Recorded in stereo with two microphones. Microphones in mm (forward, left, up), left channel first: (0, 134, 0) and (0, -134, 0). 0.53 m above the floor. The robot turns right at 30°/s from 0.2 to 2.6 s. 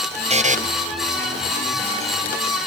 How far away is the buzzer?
About 0.8 m.